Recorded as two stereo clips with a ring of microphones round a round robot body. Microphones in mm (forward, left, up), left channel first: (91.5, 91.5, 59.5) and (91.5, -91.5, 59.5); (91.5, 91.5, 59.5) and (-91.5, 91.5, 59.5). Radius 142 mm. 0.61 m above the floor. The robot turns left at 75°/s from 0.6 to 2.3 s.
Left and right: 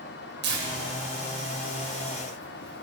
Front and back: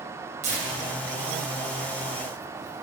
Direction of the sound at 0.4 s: 120° right.